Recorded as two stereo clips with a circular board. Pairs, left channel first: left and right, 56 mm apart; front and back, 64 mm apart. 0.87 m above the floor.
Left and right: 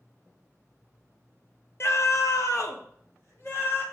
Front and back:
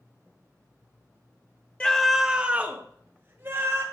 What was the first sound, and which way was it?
A scream, 65° left.